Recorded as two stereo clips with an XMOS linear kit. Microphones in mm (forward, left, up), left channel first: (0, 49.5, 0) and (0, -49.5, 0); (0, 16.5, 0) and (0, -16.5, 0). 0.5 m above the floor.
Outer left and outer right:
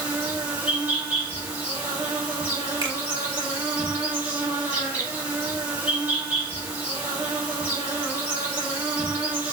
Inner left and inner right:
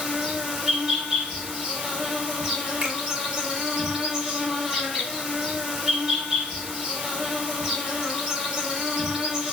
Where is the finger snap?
45° right (ahead or behind), 1.1 m.